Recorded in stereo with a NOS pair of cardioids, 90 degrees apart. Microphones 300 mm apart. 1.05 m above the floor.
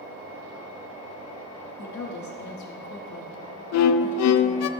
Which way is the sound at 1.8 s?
70° left.